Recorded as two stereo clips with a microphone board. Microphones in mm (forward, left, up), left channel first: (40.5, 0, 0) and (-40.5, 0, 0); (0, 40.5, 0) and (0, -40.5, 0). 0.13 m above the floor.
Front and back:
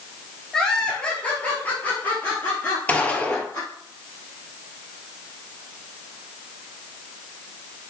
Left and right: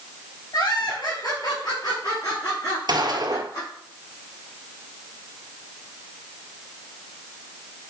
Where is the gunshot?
70° right, 1.3 m.